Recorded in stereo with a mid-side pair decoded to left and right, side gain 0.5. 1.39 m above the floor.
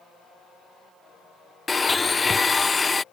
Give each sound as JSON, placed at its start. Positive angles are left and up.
{"t": 1.7, "sound": "a blender", "azimuth_deg": 20}